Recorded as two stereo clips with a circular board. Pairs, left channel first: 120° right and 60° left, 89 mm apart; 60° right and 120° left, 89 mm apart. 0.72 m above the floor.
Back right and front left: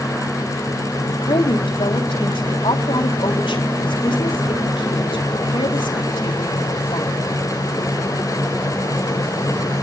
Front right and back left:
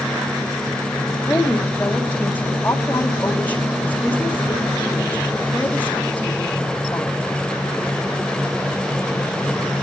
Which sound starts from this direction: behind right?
A woman speaking, at 1.1 s.